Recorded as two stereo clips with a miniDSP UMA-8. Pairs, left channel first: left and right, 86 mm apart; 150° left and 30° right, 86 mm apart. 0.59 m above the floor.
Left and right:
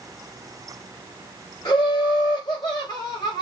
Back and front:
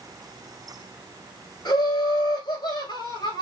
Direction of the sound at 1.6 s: 130° left.